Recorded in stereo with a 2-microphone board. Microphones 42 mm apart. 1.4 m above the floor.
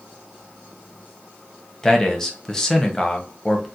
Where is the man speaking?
15° left (ahead or behind), 0.6 m.